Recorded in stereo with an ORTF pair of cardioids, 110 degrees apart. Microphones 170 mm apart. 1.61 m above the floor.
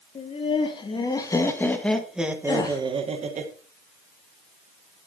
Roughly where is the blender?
No blender in this recording.